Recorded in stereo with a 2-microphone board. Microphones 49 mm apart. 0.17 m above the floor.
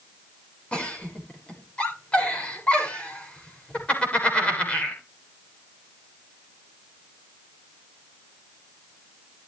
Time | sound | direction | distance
0.7 | a giggle | 25° left (ahead or behind) | 7.5 m